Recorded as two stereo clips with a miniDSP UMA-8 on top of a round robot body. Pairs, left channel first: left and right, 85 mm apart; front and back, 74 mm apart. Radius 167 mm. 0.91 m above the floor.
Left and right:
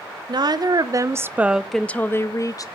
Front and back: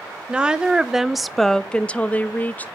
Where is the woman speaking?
105° right, 1.0 m; by 2.8 s 60° left, 0.9 m.